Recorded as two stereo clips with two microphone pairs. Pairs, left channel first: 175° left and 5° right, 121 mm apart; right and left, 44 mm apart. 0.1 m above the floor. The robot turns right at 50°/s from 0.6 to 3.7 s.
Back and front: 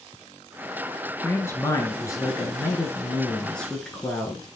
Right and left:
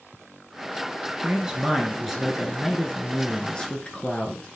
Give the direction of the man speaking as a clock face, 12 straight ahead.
8 o'clock.